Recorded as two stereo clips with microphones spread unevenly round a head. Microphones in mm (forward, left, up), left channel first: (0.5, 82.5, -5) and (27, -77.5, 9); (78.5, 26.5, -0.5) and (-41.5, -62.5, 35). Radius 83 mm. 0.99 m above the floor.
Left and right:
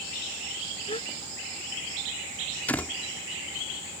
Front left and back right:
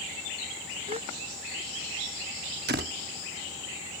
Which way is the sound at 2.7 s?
Straight behind.